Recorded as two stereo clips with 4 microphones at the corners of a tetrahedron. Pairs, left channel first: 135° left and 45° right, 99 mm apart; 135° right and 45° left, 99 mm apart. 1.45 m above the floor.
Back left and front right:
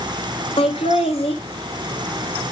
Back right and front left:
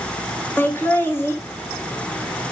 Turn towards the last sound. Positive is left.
turn(degrees=155)